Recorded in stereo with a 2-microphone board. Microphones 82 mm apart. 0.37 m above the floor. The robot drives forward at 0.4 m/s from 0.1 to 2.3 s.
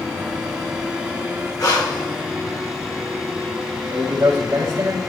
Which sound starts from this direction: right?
A man speaking, at 3.9 s.